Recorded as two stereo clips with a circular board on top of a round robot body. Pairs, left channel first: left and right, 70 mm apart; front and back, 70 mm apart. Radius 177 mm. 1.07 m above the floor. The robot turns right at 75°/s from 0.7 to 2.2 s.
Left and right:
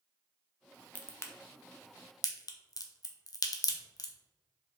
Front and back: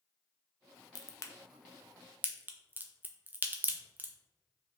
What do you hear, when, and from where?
0.9 s a crack: 20° left, 0.7 m; by 4.1 s 115° left, 0.7 m